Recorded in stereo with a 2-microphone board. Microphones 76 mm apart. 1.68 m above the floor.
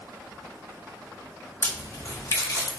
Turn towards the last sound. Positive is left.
turn(degrees=40)  # may be behind; listen again after turning